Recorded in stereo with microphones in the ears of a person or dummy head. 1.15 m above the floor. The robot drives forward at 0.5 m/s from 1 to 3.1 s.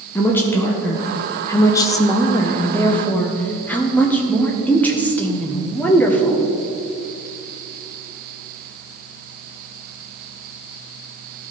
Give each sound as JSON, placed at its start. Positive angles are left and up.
{"t": 0.1, "sound": "a woman speaking", "side_deg": 15, "distance_m": 0.6}